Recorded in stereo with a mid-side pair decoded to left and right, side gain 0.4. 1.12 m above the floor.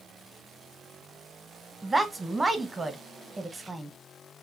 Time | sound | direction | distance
1.8 | a woman speaking | 20° right | 0.8 m